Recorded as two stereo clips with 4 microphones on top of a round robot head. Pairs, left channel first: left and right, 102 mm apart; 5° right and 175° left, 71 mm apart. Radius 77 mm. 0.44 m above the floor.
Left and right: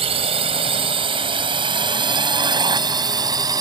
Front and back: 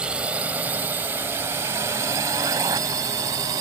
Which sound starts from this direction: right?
A drone, at 0.0 s.